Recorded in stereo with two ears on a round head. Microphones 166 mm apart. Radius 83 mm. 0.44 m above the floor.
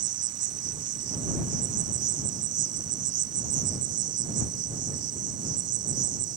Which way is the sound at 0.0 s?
70° right (ahead or behind).